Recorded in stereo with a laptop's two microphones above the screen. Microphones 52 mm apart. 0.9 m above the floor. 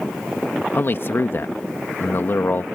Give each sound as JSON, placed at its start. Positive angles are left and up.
{"t": 0.7, "sound": "a man speaking", "side_deg": 50}